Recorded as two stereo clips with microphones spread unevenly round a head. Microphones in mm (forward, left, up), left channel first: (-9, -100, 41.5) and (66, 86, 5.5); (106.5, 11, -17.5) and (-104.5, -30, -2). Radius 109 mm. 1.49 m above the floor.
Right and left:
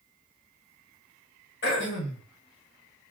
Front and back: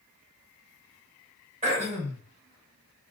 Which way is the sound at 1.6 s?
120° right.